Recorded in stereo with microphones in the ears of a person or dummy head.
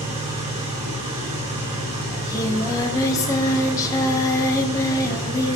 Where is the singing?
25° left (ahead or behind), 1.2 m.